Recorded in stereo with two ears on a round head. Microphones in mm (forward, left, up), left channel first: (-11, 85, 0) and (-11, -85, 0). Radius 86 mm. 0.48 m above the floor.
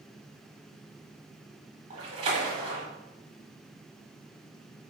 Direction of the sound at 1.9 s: 30° right (ahead or behind).